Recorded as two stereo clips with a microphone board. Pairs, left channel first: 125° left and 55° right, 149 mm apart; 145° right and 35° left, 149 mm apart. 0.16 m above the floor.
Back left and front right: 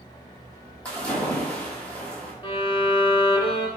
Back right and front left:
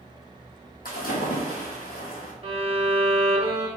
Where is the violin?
75° left, 0.6 m.